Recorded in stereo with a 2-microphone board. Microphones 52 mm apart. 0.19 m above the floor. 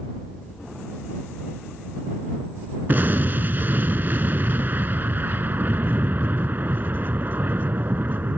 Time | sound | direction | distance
2.9 | an explosion | 40° right (ahead or behind) | ?